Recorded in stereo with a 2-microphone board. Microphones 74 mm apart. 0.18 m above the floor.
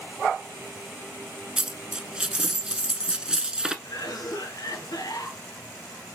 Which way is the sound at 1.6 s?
10° right (ahead or behind).